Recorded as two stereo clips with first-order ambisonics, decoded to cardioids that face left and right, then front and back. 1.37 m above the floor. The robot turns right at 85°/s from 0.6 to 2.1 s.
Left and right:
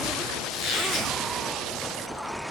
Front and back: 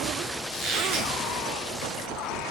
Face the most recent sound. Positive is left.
turn(degrees=-110)